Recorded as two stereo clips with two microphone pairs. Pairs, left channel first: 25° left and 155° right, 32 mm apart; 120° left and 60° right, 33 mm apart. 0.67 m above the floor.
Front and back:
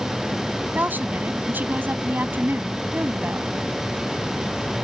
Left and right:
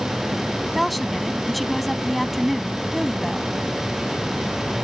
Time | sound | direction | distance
0.7 | a woman speaking | 150° right | ?